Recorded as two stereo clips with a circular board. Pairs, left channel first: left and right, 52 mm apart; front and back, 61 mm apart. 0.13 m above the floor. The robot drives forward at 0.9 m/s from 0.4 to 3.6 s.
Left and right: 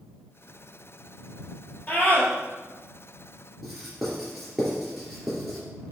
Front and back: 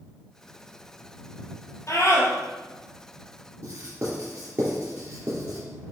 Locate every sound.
1.9 s a scream: 30° left, 3 m; by 2.3 s 35° left, 3 m
3.6 s writing: 175° right, 2.5 m